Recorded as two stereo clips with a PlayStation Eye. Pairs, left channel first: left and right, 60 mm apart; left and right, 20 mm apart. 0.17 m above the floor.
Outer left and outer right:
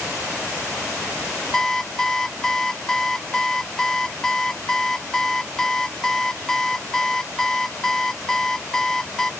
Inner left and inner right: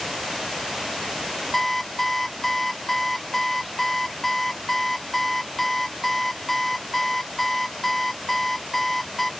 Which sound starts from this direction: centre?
An alarm clock, at 1.5 s.